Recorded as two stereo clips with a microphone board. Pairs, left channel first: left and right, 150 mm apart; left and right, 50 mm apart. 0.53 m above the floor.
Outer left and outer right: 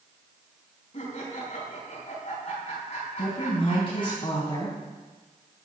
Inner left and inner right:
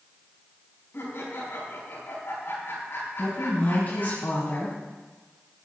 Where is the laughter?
55° left (ahead or behind), 5 m.